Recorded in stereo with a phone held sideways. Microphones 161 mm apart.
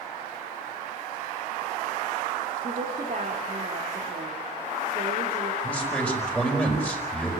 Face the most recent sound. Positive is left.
turn(degrees=10)  # may be behind; listen again after turning